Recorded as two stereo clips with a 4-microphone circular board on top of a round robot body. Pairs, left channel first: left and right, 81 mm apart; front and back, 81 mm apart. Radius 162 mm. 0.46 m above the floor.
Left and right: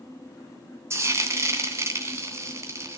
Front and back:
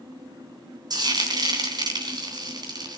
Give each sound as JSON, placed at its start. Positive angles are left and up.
{"t": 0.9, "sound": "frying", "azimuth_deg": -145, "distance_m": 3.0}